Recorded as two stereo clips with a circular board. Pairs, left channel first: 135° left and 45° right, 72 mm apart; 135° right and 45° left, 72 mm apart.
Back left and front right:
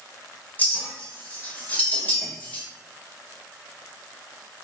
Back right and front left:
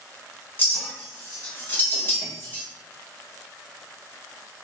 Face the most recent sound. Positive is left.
turn(degrees=-175)